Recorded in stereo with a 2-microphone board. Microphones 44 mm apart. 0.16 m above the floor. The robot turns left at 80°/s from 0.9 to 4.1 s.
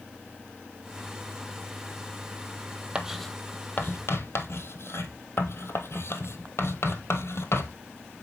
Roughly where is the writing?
Centre.